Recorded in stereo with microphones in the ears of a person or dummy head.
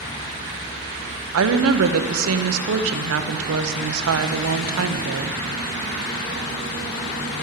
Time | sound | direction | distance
1.3 | a woman speaking | 80° right | 0.9 m